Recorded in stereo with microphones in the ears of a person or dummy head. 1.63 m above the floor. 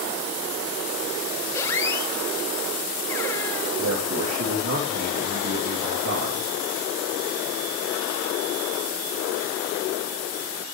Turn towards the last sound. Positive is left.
turn(degrees=-85)